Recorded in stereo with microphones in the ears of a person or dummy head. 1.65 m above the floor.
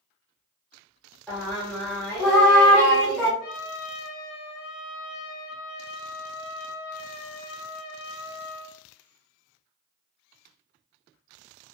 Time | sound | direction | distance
1.3 | singing | 5° right (ahead or behind) | 1.3 m
3.4 | a trumpet | 70° left (ahead or behind) | 0.8 m